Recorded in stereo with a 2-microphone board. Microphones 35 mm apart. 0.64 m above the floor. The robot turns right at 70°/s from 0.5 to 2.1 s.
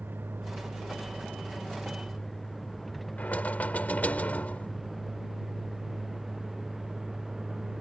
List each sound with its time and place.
0.0 s a vehicle: 80° right; by 7.8 s 10° right (ahead or behind)
3.2 s knocking: 55° left (ahead or behind)